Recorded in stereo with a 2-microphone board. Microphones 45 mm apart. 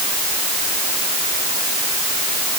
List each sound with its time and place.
Only background noise.